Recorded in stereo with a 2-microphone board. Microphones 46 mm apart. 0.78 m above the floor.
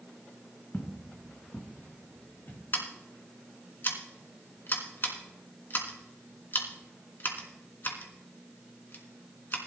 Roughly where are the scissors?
Left.